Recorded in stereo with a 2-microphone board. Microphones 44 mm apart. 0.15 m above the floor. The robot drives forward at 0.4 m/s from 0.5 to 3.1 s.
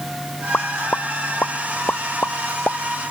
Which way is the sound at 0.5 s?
45° left (ahead or behind).